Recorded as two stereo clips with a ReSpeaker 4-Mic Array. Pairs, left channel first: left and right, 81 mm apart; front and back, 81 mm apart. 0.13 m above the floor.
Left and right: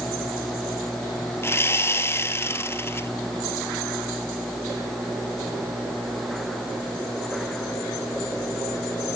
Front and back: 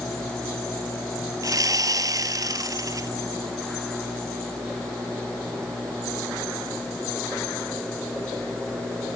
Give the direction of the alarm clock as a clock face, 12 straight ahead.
No alarm clock in this recording.